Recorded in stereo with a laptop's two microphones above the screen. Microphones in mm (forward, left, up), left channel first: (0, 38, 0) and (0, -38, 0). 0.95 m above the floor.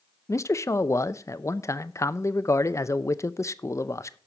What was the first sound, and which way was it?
A man speaking, 40° left (ahead or behind).